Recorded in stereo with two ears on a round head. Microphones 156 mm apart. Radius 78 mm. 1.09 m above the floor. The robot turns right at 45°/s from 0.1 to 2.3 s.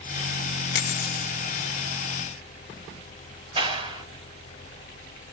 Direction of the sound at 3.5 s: 30° right (ahead or behind).